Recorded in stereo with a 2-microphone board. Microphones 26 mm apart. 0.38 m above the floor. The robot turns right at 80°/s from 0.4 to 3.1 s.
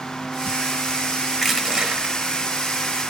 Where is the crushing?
175° right, 1.1 m; by 2.1 s 115° right, 1.1 m.